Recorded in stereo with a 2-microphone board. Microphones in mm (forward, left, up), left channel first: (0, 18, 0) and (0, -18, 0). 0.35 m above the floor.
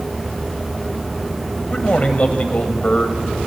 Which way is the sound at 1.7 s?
35° left (ahead or behind).